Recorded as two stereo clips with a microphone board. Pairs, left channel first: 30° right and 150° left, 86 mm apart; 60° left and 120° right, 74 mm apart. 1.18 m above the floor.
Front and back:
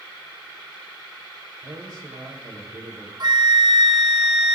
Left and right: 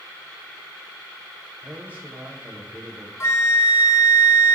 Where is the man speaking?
175° left, 3.5 m.